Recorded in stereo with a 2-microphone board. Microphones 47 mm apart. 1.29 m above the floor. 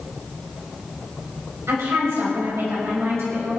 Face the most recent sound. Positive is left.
turn(degrees=-80)